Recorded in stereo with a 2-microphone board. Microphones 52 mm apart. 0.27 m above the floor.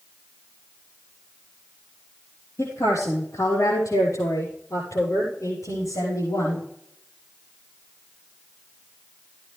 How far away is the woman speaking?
About 7.5 m.